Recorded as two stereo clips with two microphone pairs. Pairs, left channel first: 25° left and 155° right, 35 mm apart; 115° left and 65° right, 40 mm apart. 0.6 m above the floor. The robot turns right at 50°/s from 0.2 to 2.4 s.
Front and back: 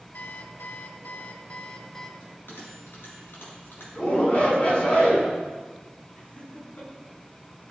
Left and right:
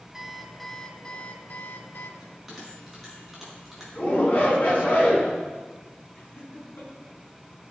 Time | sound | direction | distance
0.1 | an alarm clock | 10° left | 0.9 m
2.2 | a bell | 15° left | 5 m
4.0 | a shout | 70° left | 6 m
6.2 | laughter | 65° left | 6.5 m